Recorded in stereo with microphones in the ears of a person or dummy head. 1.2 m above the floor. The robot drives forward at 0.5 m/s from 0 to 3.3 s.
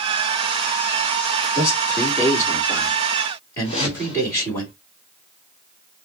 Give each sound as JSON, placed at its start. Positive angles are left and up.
{"t": 1.6, "sound": "a man speaking", "side_deg": 15, "distance_m": 2.5}
{"t": 3.6, "sound": "a whoosh", "side_deg": 30, "distance_m": 1.9}